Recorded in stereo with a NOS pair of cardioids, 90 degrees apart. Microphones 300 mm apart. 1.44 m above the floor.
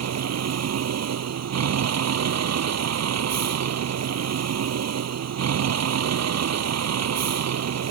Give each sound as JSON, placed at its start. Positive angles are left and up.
{"t": 0.0, "sound": "a vehicle", "azimuth_deg": -60}